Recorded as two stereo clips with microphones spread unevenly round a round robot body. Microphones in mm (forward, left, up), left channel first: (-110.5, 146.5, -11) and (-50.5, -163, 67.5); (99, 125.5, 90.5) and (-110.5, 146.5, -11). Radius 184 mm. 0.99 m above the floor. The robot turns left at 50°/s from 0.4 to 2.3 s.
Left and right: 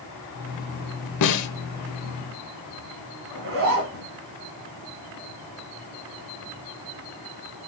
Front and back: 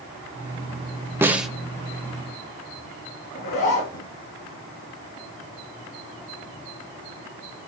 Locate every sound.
1.2 s a snare drum: 70° left, 0.9 m; by 1.5 s 55° left, 0.9 m
3.3 s a zipper: 30° right, 3 m